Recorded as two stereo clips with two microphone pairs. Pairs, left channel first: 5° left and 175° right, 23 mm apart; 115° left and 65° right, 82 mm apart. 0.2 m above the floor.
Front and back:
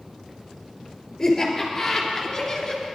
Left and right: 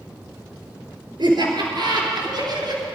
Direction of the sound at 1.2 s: 70° right.